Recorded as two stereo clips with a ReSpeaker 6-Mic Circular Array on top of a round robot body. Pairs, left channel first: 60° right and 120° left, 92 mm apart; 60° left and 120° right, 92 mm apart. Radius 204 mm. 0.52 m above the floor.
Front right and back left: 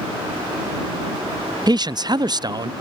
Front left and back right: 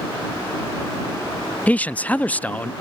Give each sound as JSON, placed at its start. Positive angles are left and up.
{"t": 1.7, "sound": "a man speaking", "azimuth_deg": 130}